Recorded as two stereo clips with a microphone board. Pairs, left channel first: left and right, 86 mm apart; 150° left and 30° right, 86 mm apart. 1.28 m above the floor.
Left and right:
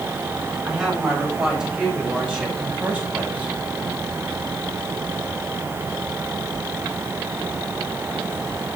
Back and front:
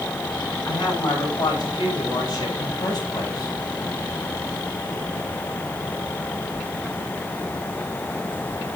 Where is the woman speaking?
170° right, 8.5 m; by 3.6 s 165° right, 5 m.